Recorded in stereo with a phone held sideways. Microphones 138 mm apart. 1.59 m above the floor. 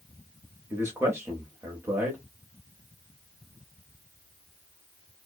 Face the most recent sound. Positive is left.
turn(degrees=-20)  # may be behind; listen again after turning